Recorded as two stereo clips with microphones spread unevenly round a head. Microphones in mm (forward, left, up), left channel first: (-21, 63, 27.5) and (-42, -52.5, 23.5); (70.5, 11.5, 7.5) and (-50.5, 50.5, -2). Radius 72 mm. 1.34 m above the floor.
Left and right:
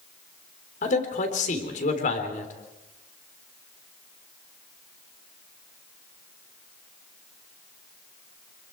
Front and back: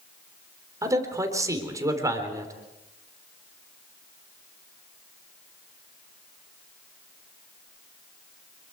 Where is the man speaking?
95° left, 3.5 m.